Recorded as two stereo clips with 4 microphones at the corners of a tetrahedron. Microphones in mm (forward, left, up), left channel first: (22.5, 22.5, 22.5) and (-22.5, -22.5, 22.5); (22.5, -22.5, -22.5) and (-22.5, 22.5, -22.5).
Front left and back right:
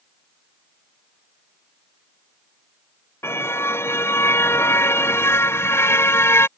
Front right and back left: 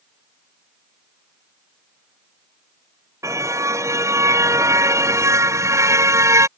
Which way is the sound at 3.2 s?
95° left.